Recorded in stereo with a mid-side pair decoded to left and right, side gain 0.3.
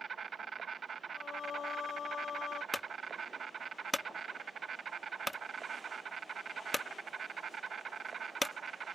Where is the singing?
70° left.